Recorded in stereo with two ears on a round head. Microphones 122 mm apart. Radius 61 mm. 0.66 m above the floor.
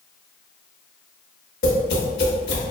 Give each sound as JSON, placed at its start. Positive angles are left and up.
{"t": 1.6, "sound": "tapping", "side_deg": 80, "distance_m": 0.7}